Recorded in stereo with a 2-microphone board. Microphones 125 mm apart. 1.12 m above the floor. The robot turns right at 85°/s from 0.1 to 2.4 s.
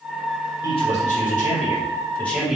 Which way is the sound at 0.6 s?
30° left.